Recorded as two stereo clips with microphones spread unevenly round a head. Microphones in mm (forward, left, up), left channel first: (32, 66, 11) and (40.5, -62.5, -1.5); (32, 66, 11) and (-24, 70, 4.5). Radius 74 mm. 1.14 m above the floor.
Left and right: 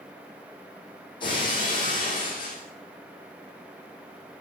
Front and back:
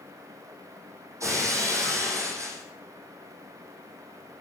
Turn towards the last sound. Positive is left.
turn(degrees=150)